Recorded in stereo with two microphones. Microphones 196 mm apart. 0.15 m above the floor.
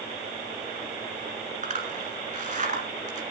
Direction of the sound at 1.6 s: 40° right (ahead or behind).